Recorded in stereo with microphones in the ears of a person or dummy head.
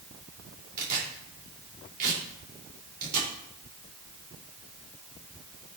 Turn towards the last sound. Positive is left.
turn(degrees=-45)  # may be behind; listen again after turning